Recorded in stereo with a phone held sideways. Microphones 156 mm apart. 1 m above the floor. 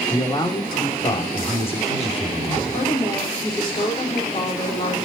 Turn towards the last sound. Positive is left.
turn(degrees=35)  # may be behind; listen again after turning